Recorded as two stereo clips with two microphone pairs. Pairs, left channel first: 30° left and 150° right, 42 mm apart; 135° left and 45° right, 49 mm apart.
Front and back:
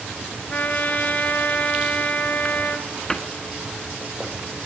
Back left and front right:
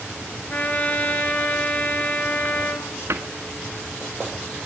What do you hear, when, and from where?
0.5 s a trumpet: 80° left, 3.5 m
3.1 s a cupboard door: 45° right, 1.7 m